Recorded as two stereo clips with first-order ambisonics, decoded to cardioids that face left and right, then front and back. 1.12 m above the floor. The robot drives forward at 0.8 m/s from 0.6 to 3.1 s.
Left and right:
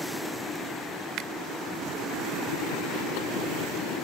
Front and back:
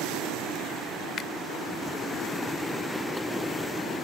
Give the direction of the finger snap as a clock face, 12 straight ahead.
2 o'clock.